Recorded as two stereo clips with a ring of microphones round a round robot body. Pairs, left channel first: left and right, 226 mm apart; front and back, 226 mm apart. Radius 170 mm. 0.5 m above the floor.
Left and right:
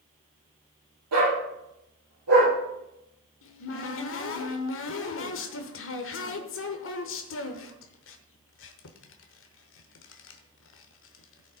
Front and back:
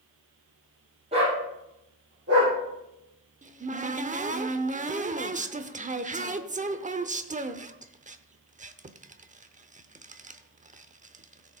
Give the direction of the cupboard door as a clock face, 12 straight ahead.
8 o'clock.